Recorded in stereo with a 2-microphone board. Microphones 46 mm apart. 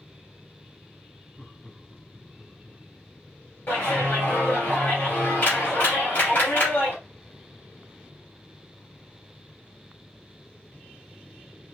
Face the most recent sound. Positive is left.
turn(degrees=50)  # may be behind; listen again after turning